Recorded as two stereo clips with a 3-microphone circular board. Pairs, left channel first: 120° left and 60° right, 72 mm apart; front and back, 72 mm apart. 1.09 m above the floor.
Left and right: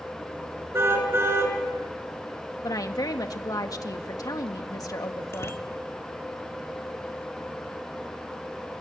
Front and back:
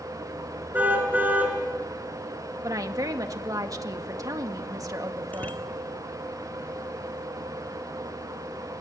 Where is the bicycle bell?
65° left, 2 m.